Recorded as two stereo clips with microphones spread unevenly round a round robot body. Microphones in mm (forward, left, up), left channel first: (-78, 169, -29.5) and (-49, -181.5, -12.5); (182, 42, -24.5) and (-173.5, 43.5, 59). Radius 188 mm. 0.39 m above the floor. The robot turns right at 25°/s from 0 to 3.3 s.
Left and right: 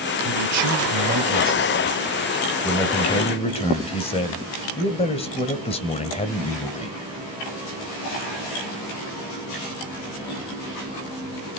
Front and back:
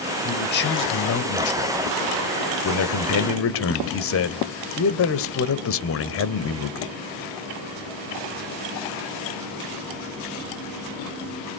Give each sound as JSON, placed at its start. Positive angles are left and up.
{"t": 0.2, "sound": "a man speaking", "azimuth_deg": -50, "distance_m": 1.5}